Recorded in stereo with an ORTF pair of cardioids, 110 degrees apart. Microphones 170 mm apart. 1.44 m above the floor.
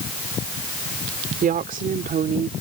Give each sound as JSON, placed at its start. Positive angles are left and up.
{"t": 1.4, "sound": "a woman speaking", "azimuth_deg": -55}